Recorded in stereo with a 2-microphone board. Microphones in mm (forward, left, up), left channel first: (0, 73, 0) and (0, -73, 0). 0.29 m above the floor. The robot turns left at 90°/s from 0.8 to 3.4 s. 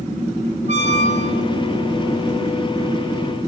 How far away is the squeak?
About 0.8 m.